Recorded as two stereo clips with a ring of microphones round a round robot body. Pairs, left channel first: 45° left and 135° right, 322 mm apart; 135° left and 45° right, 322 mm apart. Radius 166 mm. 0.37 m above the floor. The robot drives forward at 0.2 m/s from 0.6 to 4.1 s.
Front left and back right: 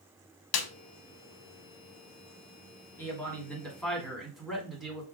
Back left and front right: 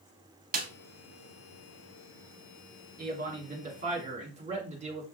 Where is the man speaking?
30° right, 1.4 m; by 5.0 s 45° right, 1.4 m.